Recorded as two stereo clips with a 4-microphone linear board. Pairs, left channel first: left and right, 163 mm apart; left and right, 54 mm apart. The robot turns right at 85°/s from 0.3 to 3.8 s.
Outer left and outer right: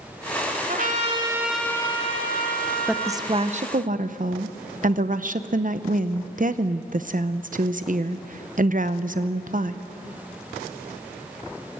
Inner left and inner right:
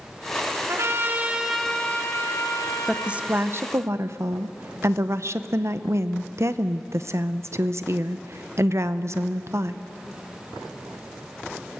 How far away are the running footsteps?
I don't hear running footsteps.